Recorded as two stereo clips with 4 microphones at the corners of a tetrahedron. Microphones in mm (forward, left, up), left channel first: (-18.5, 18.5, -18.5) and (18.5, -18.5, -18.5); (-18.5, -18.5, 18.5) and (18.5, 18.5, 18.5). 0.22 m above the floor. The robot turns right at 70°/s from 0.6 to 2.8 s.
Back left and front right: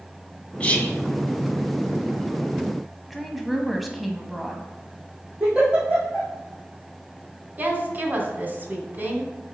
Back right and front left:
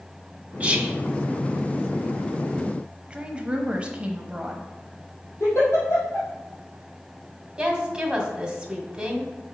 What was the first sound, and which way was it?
Whispering, 85° left.